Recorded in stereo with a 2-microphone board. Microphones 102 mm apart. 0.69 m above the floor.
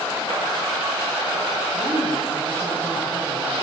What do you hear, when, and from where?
1.7 s a woman speaking: 25° left (ahead or behind), 7.5 m